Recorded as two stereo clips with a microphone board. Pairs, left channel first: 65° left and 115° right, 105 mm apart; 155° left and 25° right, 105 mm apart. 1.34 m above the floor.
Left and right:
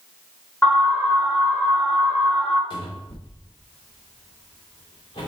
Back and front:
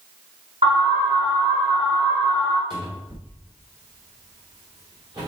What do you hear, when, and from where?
0.6 s an alarm: 5° right, 4 m
2.7 s a cupboard door: 25° left, 3 m